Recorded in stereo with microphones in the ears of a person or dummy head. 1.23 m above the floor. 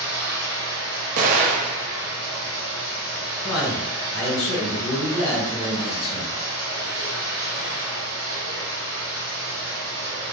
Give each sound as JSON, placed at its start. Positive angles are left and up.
{"t": 0.0, "sound": "running water", "side_deg": -15, "distance_m": 1.4}
{"t": 1.2, "sound": "an explosion", "side_deg": -45, "distance_m": 0.5}
{"t": 3.4, "sound": "a man speaking", "side_deg": 65, "distance_m": 1.2}